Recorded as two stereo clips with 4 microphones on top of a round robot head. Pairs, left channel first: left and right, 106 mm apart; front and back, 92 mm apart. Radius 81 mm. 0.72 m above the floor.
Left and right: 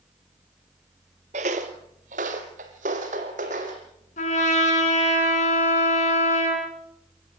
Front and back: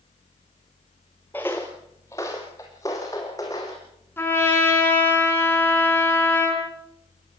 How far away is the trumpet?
About 5.5 m.